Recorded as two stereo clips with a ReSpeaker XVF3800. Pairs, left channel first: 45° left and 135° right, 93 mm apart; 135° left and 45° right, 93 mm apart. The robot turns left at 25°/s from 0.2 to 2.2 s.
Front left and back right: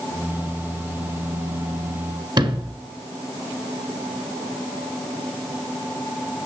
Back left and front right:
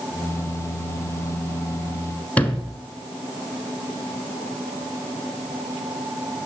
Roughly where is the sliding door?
Behind right.